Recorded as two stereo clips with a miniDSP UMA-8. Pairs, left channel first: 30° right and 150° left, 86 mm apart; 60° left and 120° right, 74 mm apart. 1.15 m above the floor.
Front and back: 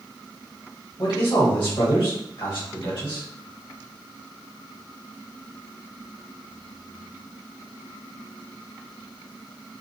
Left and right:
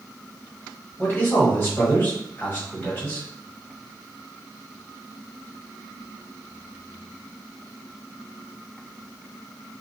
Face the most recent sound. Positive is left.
turn(degrees=-5)